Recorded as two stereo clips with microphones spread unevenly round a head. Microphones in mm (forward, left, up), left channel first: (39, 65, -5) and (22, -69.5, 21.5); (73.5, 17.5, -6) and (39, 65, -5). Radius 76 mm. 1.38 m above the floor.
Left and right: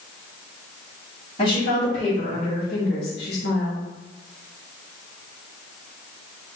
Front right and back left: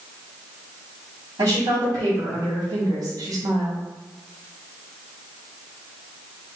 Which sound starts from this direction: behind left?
A woman speaking, at 1.4 s.